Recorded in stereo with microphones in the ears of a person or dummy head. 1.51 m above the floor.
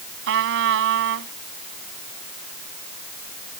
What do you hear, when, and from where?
0.3 s a trumpet: 65° right (ahead or behind)